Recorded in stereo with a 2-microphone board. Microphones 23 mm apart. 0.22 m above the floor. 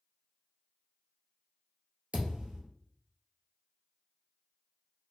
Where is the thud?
75° right (ahead or behind), 1.2 m.